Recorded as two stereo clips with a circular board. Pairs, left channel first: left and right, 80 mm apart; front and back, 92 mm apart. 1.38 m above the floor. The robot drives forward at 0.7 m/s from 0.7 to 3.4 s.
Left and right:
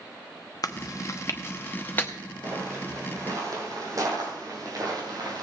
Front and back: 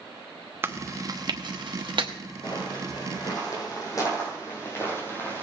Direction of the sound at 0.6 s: 120° left.